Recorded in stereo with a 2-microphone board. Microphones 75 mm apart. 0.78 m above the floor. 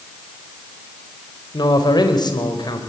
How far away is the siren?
I don't hear a siren.